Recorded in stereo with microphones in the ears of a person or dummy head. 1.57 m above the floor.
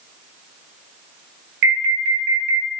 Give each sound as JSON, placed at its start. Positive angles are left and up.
{"t": 1.6, "sound": "an alarm", "side_deg": -65, "distance_m": 0.8}